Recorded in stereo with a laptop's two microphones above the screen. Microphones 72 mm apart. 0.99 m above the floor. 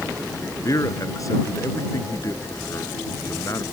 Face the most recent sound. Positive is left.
turn(degrees=50)  # may be behind; listen again after turning